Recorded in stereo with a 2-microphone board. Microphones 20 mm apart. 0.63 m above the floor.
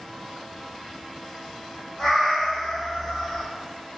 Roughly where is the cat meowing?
Centre.